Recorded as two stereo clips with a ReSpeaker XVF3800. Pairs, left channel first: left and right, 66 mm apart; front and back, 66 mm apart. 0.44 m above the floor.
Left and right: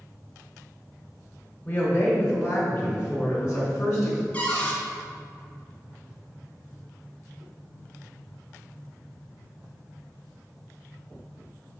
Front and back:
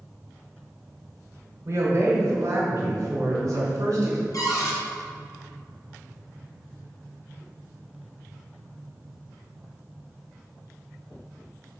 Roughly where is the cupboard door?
Ahead.